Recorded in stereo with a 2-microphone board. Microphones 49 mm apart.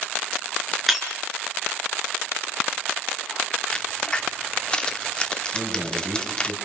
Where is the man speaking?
40° right (ahead or behind), 6 m.